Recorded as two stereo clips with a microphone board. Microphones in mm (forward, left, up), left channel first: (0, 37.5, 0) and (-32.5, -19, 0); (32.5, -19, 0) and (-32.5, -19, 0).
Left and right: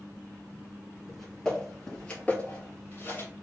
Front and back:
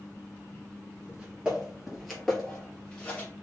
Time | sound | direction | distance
1.1 | footsteps | 145° left | 1.5 m